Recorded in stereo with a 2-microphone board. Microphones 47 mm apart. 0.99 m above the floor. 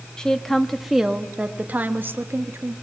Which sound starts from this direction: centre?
A woman speaking, at 0.2 s.